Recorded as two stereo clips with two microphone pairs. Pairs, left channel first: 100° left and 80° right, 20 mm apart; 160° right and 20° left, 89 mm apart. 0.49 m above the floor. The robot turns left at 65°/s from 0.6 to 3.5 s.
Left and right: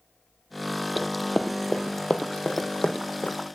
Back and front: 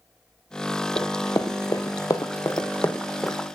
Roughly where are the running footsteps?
Behind.